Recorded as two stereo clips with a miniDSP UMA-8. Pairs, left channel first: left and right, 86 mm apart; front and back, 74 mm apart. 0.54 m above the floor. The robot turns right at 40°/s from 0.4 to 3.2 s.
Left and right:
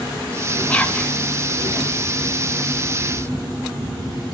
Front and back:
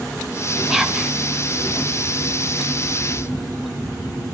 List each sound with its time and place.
0.7 s whispering: 105° left, 0.7 m; by 1.1 s 125° left, 0.7 m